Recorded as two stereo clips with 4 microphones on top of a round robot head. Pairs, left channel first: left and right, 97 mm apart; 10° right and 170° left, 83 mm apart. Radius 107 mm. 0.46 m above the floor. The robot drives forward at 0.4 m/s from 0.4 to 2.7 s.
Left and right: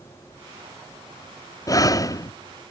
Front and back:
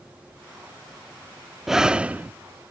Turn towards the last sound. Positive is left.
turn(degrees=125)